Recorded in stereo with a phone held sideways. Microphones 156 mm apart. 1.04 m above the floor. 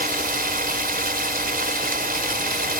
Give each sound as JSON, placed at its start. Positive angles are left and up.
{"t": 0.0, "sound": "running water", "side_deg": -70}